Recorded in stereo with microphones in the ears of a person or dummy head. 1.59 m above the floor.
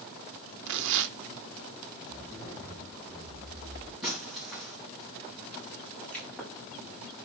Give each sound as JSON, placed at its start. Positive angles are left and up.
{"t": 0.7, "sound": "tearing paper", "side_deg": -65, "distance_m": 0.6}
{"t": 2.1, "sound": "a zipper", "side_deg": 10, "distance_m": 7.0}
{"t": 4.0, "sound": "breaking glass", "side_deg": -5, "distance_m": 4.0}
{"t": 5.9, "sound": "a pop", "side_deg": 5, "distance_m": 6.0}